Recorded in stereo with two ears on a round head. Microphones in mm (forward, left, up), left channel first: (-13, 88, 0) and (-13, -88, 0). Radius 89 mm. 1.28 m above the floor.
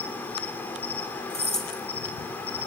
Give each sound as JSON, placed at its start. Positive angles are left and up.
{"t": 0.0, "sound": "an insect", "side_deg": 10, "distance_m": 3.0}
{"t": 1.3, "sound": "keys jangling", "side_deg": 0, "distance_m": 5.0}